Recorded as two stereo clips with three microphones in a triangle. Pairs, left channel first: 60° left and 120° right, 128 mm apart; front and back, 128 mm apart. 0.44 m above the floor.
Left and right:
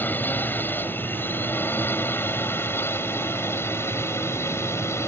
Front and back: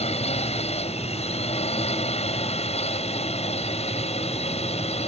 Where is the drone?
10° right; by 5.1 s 5° right.